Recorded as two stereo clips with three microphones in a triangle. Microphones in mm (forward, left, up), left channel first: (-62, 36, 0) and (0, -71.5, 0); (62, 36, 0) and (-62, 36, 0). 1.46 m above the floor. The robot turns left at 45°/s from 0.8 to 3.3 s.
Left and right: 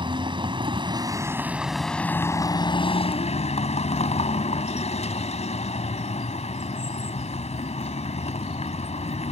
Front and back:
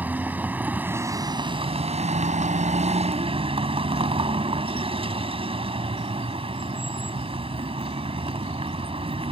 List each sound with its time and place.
0.0 s a vehicle: 105° right; by 9.3 s 145° left